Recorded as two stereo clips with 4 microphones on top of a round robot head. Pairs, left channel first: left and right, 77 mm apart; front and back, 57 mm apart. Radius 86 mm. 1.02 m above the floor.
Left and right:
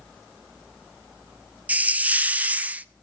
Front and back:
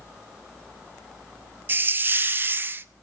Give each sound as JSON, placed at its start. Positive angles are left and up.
{"t": 1.7, "sound": "a hiss", "azimuth_deg": -150, "distance_m": 1.0}